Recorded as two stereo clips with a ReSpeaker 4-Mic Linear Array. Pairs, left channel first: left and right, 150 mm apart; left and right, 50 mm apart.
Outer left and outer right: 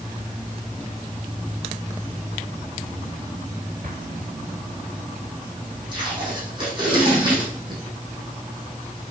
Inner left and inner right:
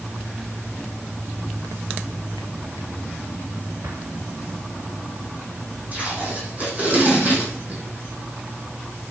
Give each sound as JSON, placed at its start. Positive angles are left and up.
{"t": 3.8, "sound": "an explosion", "side_deg": -75, "distance_m": 1.6}
{"t": 5.9, "sound": "tape being pulled", "side_deg": -35, "distance_m": 7.0}